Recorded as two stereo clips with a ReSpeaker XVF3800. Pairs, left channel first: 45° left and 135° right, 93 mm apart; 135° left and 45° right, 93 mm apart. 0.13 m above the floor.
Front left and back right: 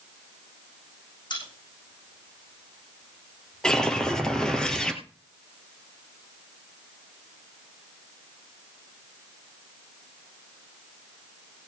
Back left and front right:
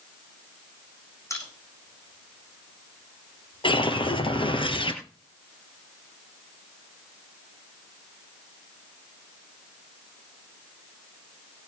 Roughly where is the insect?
I don't hear an insect.